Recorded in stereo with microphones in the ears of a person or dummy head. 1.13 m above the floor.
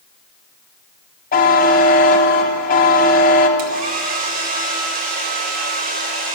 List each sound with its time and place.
1.3 s a buzzer: 50° left (ahead or behind), 1.0 m
3.6 s a hair dryer: 40° right (ahead or behind), 1.3 m